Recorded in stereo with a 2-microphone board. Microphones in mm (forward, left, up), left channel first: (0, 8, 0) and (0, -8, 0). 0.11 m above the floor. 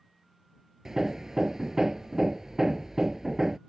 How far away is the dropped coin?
No dropped coin in this recording.